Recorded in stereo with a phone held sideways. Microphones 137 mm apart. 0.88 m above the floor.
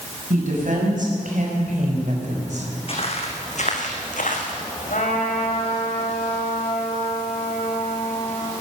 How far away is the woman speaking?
About 6.5 m.